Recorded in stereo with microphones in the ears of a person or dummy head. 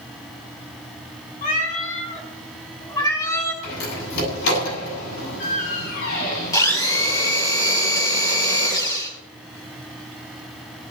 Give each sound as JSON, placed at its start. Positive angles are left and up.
{"t": 1.4, "sound": "a cat meowing", "side_deg": 45, "distance_m": 4.0}
{"t": 3.6, "sound": "a door slam", "side_deg": 75, "distance_m": 8.0}
{"t": 6.5, "sound": "a blender", "side_deg": 20, "distance_m": 3.5}